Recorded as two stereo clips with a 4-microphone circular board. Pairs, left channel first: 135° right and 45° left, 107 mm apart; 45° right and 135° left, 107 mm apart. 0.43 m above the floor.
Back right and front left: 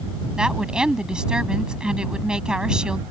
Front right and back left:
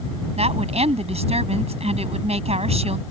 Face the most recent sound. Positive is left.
turn(degrees=125)